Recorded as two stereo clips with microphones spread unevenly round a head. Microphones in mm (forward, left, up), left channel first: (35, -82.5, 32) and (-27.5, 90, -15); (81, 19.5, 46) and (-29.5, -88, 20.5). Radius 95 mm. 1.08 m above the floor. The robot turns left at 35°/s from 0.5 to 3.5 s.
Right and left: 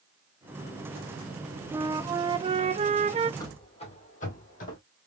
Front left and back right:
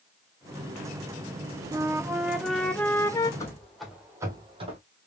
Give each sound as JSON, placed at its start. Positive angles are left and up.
{"t": 1.7, "sound": "a flute", "azimuth_deg": 170, "distance_m": 0.5}
{"t": 3.4, "sound": "running footsteps", "azimuth_deg": -15, "distance_m": 1.8}